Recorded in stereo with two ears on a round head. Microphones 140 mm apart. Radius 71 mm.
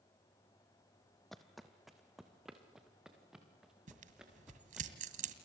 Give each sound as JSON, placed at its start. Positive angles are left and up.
{"t": 1.3, "sound": "footsteps", "side_deg": 0, "distance_m": 1.1}
{"t": 3.9, "sound": "tearing paper", "side_deg": -55, "distance_m": 2.0}